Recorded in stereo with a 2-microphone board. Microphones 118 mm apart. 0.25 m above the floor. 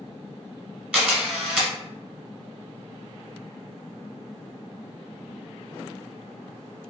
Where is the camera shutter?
10° right (ahead or behind), 1.4 m.